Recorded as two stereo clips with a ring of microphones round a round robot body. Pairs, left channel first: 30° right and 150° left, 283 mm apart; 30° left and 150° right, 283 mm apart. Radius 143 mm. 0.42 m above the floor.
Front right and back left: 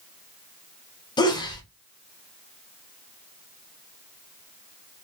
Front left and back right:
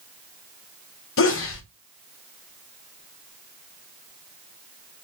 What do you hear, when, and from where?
1.2 s a sneeze: 40° left, 1.7 m